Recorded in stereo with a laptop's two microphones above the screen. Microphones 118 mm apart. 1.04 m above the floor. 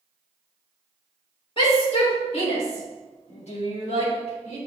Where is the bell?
I don't hear a bell.